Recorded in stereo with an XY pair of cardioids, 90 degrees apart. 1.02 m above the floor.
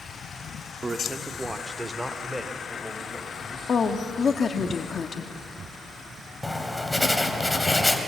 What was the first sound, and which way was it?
A man speaking, 35° right.